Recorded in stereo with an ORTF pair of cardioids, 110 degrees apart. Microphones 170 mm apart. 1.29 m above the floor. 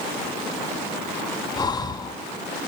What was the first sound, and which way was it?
Breathing, 25° left.